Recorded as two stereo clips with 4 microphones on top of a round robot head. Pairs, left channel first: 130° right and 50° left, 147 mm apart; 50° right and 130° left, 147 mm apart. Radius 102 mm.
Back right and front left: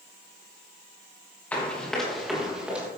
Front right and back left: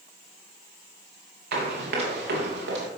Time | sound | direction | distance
1.5 | running footsteps | 150° left | 5 m